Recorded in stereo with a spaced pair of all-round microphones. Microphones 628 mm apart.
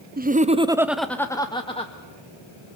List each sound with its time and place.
0.2 s laughter: 15° right (ahead or behind), 0.6 m; by 1.9 s 10° left (ahead or behind), 1.1 m